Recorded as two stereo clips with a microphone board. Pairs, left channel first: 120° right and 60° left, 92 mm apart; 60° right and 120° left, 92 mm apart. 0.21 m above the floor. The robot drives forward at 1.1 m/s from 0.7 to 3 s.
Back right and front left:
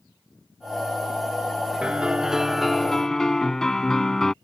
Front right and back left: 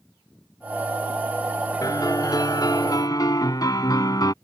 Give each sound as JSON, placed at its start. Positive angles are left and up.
{"t": 1.8, "sound": "a piano", "azimuth_deg": -20}